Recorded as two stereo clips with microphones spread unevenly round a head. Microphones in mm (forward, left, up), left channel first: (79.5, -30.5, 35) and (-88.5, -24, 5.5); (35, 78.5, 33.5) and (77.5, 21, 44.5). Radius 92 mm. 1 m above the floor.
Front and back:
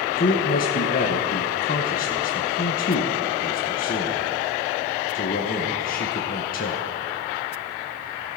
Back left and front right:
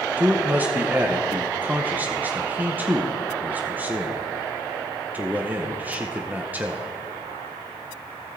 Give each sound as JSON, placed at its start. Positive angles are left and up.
{"t": 0.2, "sound": "a man speaking", "azimuth_deg": 15, "distance_m": 0.9}